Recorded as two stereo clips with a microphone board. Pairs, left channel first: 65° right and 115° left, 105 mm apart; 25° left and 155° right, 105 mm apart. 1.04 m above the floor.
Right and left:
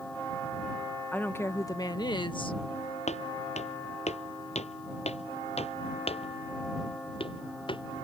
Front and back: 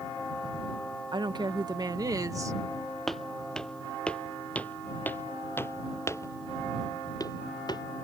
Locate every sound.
1.1 s a woman speaking: 140° right; by 2.6 s 100° right
3.1 s footsteps: 65° right; by 7.8 s 25° right